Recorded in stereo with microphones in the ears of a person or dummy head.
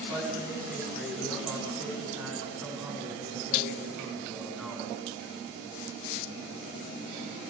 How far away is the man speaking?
About 5.5 m.